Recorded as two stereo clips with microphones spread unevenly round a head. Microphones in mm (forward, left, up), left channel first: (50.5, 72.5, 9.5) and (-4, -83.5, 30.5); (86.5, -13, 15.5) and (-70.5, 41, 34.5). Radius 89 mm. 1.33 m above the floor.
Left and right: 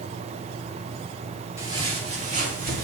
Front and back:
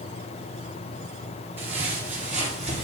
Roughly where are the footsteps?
Behind right.